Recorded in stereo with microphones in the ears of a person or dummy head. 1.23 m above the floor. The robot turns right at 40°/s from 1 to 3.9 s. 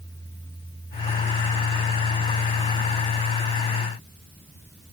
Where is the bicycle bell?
No bicycle bell in this recording.